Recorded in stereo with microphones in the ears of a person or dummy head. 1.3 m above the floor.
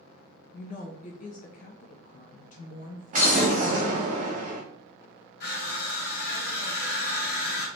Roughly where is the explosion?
Right.